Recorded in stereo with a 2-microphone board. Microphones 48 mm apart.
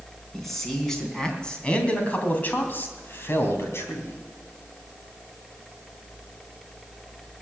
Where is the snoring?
I don't hear snoring.